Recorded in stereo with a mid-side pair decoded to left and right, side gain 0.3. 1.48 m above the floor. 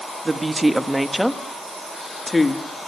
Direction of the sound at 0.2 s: 35° right.